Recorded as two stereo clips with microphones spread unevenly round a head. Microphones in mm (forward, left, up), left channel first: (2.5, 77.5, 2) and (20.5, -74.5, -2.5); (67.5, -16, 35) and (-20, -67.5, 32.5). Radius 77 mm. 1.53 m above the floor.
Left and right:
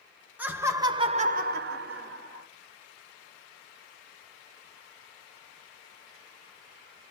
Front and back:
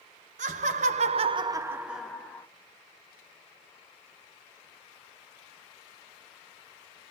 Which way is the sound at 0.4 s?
165° right.